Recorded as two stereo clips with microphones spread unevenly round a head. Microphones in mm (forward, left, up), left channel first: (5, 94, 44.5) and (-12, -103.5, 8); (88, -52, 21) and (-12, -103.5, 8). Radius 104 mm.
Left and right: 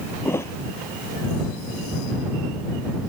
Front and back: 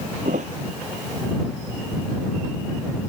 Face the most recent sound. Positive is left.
turn(degrees=160)